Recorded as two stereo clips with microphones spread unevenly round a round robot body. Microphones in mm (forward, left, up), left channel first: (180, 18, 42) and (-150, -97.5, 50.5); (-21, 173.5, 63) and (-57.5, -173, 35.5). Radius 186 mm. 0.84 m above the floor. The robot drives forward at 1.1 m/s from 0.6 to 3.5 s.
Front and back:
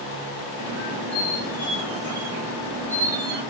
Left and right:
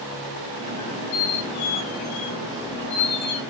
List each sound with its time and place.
0.8 s a squeak: 85° left, 3 m; by 3.4 s 135° left, 4 m